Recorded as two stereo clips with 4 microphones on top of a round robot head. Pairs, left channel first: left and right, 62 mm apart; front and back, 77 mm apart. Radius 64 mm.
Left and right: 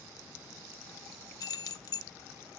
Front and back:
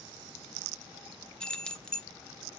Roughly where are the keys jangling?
Left.